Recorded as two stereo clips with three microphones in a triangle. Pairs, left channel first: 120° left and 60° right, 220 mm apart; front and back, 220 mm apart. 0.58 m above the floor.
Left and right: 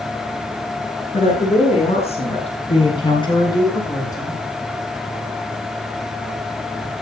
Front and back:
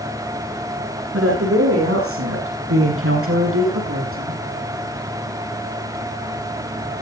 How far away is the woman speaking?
About 9.5 m.